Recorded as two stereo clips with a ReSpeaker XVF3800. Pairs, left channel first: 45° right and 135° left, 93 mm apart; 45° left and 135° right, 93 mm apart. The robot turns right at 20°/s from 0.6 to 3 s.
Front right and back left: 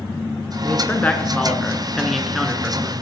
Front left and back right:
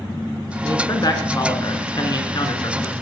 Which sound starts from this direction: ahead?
A man speaking, at 0.6 s.